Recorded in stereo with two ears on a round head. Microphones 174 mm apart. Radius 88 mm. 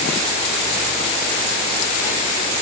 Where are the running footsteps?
No running footsteps in this recording.